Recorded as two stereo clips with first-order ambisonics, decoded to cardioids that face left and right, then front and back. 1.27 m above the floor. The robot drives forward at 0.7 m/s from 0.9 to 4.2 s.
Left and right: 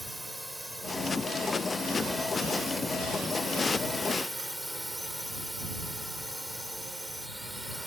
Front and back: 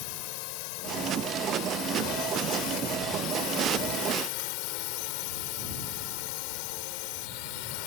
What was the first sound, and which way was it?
A drone, straight ahead.